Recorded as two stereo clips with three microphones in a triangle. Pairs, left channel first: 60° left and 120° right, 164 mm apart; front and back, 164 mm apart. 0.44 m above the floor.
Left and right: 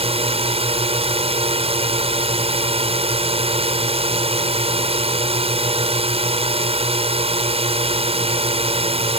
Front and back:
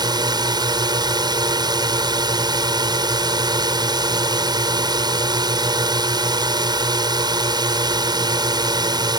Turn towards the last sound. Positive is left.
turn(degrees=-135)